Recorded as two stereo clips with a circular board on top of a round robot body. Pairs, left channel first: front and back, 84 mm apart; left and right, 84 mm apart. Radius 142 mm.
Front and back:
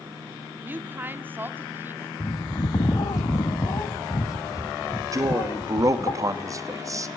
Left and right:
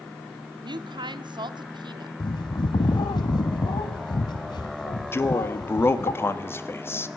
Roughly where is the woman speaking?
Behind right.